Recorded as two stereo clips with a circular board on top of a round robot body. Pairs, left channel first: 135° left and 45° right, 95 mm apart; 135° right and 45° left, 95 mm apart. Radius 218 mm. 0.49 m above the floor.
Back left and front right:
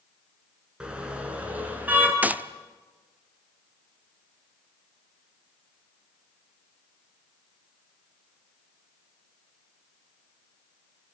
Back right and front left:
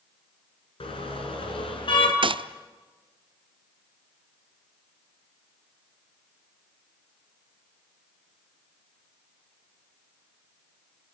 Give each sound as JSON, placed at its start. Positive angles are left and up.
{"t": 0.8, "sound": "a car horn", "azimuth_deg": -125, "distance_m": 4.5}
{"t": 2.2, "sound": "a gunshot", "azimuth_deg": 25, "distance_m": 0.9}